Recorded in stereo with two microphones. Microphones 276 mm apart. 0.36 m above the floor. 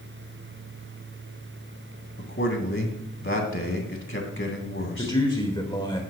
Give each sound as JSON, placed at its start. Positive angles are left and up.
{"t": 2.2, "sound": "a man speaking", "side_deg": 45, "distance_m": 2.5}
{"t": 5.0, "sound": "a man speaking", "side_deg": 15, "distance_m": 1.3}